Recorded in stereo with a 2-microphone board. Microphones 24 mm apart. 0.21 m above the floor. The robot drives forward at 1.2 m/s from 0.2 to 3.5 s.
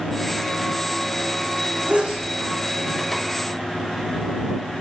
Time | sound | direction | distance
1.9 | a sneeze | 60° right (ahead or behind) | 9 m